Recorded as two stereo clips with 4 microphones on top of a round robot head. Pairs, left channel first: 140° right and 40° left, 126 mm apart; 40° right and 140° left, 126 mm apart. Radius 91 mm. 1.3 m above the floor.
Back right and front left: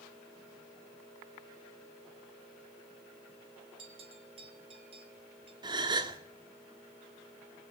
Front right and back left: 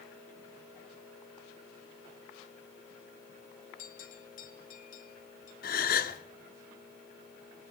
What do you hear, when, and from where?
3.8 s a bell: 15° right, 3.5 m
5.6 s a gasp: 20° right, 1.7 m